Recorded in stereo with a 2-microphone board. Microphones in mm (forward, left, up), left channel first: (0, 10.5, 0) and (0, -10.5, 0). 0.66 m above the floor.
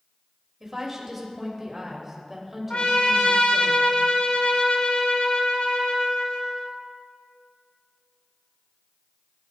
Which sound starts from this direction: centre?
A woman speaking, at 0.6 s.